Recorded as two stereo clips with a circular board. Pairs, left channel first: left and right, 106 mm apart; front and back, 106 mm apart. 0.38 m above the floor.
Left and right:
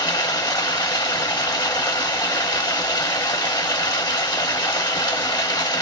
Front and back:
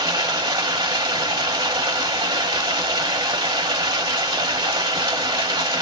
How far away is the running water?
About 1.0 m.